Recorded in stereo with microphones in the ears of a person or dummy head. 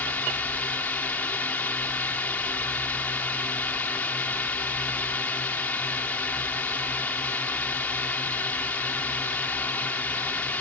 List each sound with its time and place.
0.0 s a drone: 10° left (ahead or behind)